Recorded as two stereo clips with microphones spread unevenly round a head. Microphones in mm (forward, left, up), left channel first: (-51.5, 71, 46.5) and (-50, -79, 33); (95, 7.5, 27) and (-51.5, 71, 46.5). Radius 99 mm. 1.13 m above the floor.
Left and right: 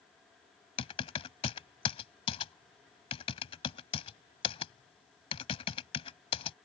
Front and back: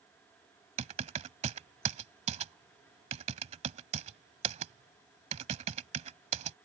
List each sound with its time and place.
0.8 s typing on a keyboard: 130° left